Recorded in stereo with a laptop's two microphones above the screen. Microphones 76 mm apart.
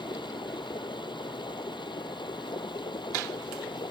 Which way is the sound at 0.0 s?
90° left.